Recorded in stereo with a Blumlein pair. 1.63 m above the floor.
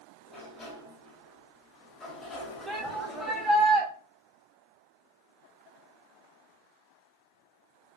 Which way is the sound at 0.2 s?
20° left.